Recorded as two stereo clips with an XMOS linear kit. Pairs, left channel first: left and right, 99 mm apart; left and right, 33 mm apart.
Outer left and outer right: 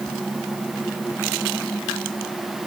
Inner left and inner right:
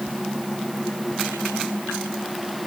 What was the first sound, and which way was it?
Only background noise.